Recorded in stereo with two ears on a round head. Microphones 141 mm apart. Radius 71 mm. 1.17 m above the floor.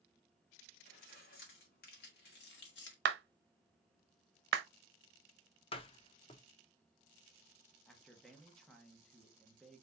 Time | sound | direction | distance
0.8 | keys jangling | 60° left (ahead or behind) | 2.5 m
3.0 | a clap | 80° right | 0.7 m
5.7 | a door slam | 35° left (ahead or behind) | 0.6 m
7.9 | a man speaking | centre (ahead or behind) | 1.0 m